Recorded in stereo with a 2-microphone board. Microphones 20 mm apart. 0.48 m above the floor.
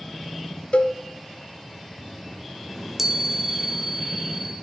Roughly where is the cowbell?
Left.